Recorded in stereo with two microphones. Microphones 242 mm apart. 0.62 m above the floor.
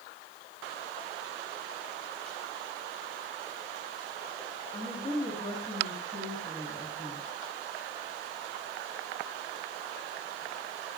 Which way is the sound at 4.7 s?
25° left (ahead or behind).